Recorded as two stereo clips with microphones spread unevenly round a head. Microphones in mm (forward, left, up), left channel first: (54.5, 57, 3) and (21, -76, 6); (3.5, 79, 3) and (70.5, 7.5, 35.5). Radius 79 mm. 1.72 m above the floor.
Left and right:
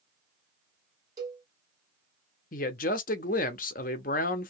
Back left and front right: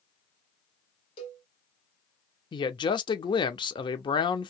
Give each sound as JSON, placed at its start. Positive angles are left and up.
{"t": 1.2, "sound": "a cowbell", "azimuth_deg": -175, "distance_m": 1.0}
{"t": 2.5, "sound": "a man speaking", "azimuth_deg": 85, "distance_m": 0.9}